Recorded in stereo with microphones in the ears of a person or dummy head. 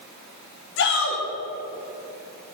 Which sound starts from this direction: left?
A shout, at 0.8 s.